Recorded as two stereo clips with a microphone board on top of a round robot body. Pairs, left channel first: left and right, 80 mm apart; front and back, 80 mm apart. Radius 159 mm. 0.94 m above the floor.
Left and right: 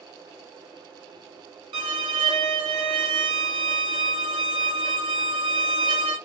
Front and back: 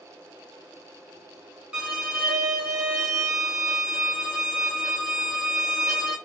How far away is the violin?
About 0.5 m.